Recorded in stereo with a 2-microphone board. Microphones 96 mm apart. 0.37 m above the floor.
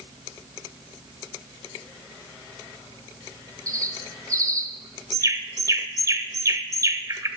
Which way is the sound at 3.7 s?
35° right (ahead or behind).